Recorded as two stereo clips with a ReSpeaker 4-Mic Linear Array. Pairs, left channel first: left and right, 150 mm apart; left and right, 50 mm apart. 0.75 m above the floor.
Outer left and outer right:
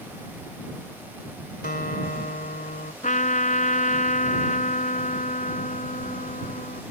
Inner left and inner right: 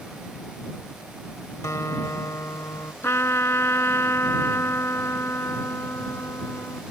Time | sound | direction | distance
1.6 | a guitar | 80° left | ?
3.0 | a trumpet | 60° left (ahead or behind) | ?